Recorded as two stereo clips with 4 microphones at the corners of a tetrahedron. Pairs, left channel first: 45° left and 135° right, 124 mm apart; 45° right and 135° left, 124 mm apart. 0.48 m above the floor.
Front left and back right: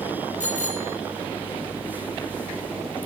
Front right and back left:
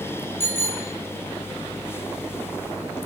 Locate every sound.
0.4 s a bicycle bell: 25° left, 8.5 m